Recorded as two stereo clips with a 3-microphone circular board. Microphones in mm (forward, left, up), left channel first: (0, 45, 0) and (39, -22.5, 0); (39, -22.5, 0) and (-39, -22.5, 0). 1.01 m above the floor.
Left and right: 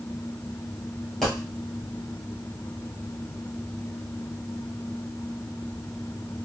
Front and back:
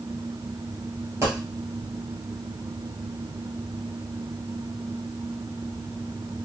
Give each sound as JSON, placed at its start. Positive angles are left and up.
{"t": 1.2, "sound": "a dropped coin", "azimuth_deg": -160, "distance_m": 1.3}